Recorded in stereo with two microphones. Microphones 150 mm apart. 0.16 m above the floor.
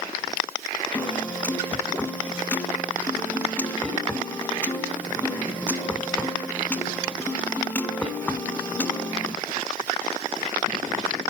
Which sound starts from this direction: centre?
A piano, at 0.9 s.